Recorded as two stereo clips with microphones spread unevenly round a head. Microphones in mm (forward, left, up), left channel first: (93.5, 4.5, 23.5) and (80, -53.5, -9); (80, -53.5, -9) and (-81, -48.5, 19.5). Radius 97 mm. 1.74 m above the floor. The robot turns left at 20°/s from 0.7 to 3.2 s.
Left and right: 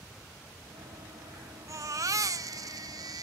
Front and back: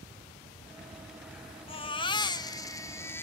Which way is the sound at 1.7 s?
55° right.